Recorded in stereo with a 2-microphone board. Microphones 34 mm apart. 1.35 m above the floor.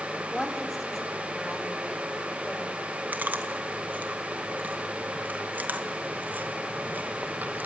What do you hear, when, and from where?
0.3 s a woman speaking: 5° left (ahead or behind), 3.5 m; by 2.8 s 10° left (ahead or behind), 6 m
3.1 s chewing: 60° right (ahead or behind), 1.7 m